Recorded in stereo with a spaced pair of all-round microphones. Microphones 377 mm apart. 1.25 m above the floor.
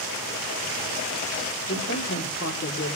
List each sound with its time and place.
1.7 s a man speaking: 35° left (ahead or behind), 3 m